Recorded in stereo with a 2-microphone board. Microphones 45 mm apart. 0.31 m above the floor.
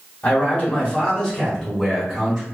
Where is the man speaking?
30° left (ahead or behind), 1.3 m; by 2.4 s 5° right (ahead or behind), 1.3 m.